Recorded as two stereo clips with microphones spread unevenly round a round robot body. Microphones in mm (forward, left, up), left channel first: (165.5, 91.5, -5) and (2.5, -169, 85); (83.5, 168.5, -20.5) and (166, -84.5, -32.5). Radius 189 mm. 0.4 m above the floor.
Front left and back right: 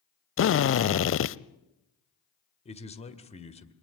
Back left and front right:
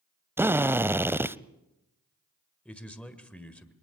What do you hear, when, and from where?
0.4 s a drill: 10° left, 0.7 m
2.6 s a man speaking: 20° left, 1.8 m